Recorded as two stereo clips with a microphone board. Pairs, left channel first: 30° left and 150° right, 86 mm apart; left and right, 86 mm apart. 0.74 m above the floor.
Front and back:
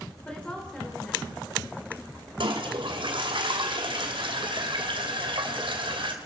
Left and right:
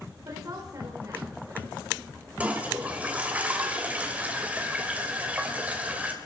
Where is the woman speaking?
45° right, 3.5 m.